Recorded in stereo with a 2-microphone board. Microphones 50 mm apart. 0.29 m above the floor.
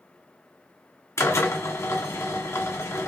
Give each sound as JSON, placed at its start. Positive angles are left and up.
{"t": 1.2, "sound": "a drill", "side_deg": 65, "distance_m": 1.3}